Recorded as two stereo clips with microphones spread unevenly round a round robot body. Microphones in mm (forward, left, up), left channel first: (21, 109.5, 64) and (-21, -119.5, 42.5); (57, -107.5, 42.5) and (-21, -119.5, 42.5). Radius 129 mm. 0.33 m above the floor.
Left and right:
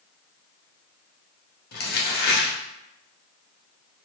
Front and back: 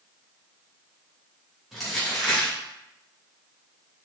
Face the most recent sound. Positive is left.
turn(degrees=100)